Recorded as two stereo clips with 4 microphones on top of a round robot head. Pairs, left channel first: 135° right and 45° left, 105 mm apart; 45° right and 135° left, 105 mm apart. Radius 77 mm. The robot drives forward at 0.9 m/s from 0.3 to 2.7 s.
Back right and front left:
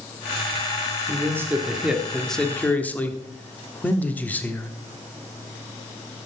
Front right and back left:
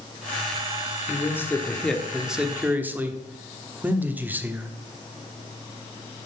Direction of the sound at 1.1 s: Straight ahead.